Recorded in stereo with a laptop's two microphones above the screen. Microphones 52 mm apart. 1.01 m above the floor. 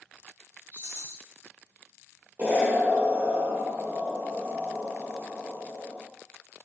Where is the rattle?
55° right (ahead or behind), 1.3 m.